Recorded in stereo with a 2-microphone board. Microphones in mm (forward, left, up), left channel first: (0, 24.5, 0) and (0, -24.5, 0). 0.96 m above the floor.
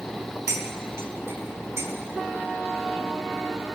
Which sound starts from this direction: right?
Cutlery clinking, at 0.5 s.